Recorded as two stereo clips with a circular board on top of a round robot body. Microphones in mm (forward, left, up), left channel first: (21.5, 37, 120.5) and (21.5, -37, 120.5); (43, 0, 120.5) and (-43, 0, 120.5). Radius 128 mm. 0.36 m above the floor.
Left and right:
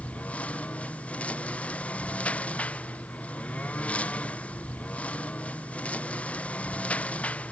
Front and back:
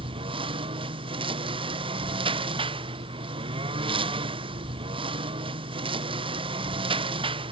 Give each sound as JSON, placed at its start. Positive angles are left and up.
{"t": 0.0, "sound": "a lawn mower", "azimuth_deg": 165}